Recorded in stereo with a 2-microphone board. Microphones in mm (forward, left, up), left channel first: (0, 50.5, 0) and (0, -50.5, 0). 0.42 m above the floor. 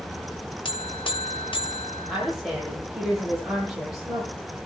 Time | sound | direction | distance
0.7 | a buzzer | 55° left (ahead or behind) | 1.1 m
2.1 | a woman speaking | 5° right (ahead or behind) | 9 m